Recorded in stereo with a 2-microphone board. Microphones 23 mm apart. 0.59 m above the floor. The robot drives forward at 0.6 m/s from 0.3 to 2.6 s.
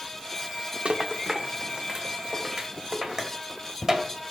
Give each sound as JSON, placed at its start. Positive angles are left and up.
{"t": 0.8, "sound": "a rattle", "side_deg": -50, "distance_m": 0.6}